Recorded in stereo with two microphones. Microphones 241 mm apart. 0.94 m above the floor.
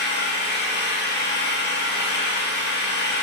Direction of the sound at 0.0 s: 45° left (ahead or behind).